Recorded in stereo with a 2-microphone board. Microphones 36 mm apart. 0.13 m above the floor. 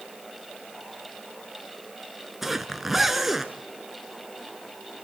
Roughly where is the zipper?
Centre.